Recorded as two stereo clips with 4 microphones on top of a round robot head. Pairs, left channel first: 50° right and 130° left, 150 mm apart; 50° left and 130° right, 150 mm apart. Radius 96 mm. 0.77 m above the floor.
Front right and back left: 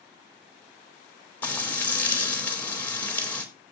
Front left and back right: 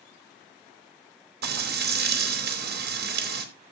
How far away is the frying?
About 4 m.